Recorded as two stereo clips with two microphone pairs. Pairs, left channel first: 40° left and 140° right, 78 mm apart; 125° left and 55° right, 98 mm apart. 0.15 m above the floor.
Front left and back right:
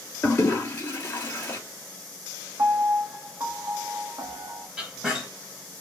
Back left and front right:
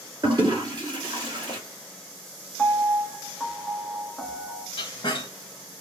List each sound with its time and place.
0.2 s a toilet flushing: 15° right, 2.5 m
2.6 s a piano: 150° right, 1.1 m
4.8 s a squeak: 145° left, 1.4 m